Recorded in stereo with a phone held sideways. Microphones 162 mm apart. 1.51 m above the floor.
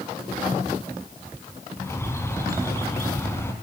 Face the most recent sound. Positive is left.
turn(degrees=15)  # may be behind; listen again after turning